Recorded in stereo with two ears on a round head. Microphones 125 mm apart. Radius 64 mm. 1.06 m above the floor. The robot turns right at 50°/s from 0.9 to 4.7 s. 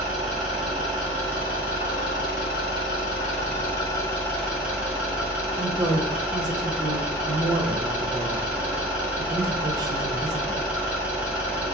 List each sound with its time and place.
0.0 s an engine running: straight ahead, 1.8 m; by 11.8 s 170° right, 1.8 m
5.6 s a woman speaking: 30° right (ahead or behind), 0.9 m